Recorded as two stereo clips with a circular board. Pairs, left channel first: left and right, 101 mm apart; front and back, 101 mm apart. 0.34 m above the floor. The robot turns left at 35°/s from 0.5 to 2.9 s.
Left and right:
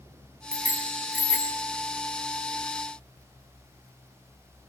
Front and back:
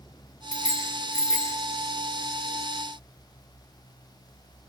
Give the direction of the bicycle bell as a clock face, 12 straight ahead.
5 o'clock.